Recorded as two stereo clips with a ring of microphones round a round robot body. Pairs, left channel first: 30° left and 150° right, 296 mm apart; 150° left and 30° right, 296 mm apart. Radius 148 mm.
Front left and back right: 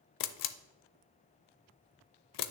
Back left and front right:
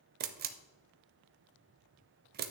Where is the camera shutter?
25° left, 0.6 m.